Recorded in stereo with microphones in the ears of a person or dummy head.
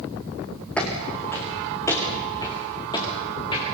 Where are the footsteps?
10° left (ahead or behind), 4 m; by 3.6 s 25° left (ahead or behind), 7 m.